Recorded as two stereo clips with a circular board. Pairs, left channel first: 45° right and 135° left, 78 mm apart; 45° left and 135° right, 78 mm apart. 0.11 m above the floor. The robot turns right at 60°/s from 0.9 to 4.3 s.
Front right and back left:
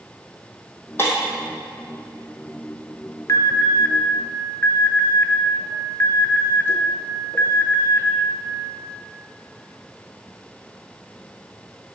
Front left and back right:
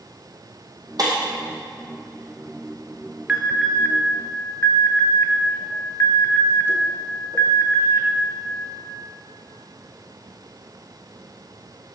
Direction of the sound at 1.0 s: 105° right.